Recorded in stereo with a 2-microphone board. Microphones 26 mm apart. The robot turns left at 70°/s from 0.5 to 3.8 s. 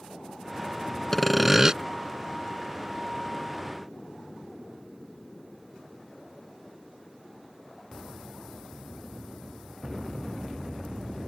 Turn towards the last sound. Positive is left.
turn(degrees=-175)